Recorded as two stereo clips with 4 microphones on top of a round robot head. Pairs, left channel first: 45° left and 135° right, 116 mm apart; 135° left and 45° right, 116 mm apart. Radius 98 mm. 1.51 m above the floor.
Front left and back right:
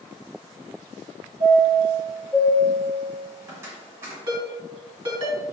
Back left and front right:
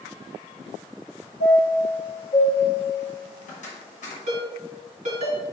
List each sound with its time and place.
1.4 s a chime: 160° left, 1.8 m
4.3 s a ringtone: 80° right, 2.5 m